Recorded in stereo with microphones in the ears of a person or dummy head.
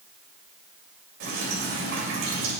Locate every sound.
1.2 s dripping: 55° right (ahead or behind), 3 m